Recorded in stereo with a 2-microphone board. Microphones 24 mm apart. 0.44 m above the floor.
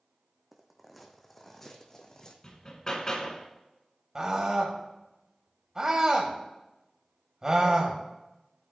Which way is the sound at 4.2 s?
30° right (ahead or behind).